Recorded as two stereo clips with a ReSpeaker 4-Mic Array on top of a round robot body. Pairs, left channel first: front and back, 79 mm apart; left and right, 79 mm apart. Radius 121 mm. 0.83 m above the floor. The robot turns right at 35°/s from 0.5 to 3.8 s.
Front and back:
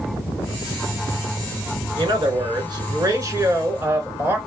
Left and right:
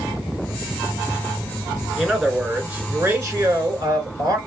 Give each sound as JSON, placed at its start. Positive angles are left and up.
{"t": 2.0, "sound": "a man speaking", "azimuth_deg": 175, "distance_m": 2.0}